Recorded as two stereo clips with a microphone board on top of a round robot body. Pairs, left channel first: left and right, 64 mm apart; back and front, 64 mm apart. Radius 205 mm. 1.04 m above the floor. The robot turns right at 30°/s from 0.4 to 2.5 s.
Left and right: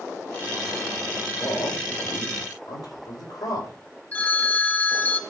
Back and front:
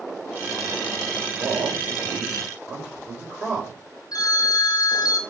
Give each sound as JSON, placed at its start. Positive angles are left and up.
{"t": 1.2, "sound": "a man speaking", "azimuth_deg": 40, "distance_m": 5.0}
{"t": 4.1, "sound": "a phone ringing", "azimuth_deg": 155, "distance_m": 0.9}